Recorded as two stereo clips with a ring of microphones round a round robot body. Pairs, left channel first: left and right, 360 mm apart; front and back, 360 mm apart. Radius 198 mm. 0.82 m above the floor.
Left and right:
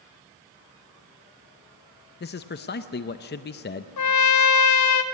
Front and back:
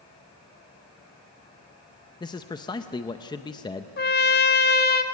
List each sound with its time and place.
2.2 s a man speaking: 65° left, 0.6 m
4.0 s a trumpet: 60° left, 1.0 m